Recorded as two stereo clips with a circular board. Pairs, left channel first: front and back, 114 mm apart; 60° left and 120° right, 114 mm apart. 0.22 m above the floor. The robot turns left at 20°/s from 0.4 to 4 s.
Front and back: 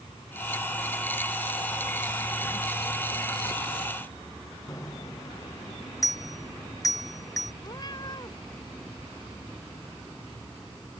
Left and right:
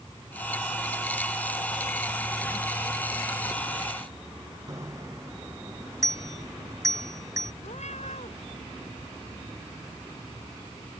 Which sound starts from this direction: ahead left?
A cat meowing, at 7.6 s.